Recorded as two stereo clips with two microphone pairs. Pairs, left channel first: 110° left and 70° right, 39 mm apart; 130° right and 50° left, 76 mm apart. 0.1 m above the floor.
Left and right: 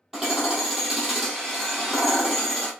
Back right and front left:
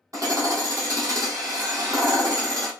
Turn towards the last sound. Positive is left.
turn(degrees=10)